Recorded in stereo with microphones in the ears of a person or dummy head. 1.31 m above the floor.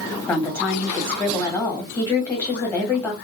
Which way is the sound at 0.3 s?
15° left (ahead or behind).